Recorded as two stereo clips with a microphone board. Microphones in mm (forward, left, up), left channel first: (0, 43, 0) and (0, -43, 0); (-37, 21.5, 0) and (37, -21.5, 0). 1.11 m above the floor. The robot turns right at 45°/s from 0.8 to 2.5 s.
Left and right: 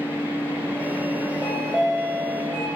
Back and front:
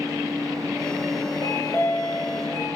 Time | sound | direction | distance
1.4 | a chime | straight behind | 2.5 m